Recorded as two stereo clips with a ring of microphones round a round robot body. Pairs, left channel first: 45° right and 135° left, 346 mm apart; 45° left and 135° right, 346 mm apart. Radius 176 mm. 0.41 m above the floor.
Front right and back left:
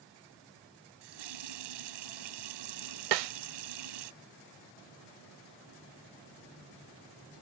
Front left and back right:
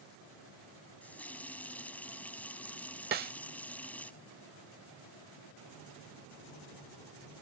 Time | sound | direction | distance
1.0 | a running tap | 130° left | ?
3.1 | a snare drum | 160° left | ?